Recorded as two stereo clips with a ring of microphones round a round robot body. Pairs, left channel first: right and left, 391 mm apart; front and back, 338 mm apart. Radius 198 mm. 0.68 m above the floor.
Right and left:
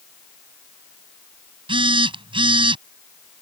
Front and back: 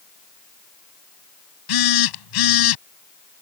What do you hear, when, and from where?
1.7 s a phone buzzing: 10° left